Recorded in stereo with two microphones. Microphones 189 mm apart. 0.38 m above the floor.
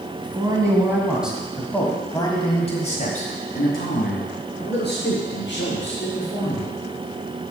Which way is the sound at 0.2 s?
25° right (ahead or behind).